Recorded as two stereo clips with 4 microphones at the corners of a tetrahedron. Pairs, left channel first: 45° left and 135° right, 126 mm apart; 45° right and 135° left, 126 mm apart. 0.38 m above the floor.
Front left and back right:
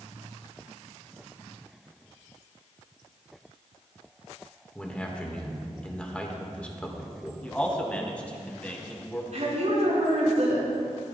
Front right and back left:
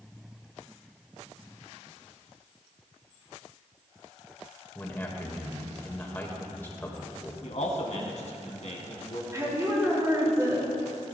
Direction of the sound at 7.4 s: 35° right.